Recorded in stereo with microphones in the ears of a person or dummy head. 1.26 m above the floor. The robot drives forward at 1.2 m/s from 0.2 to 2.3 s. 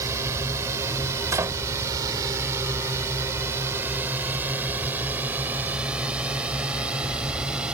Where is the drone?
20° right (ahead or behind); by 7.7 s 5° right (ahead or behind).